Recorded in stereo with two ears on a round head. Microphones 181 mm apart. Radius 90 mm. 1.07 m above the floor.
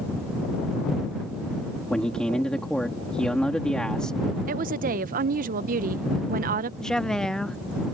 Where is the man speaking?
5° left (ahead or behind).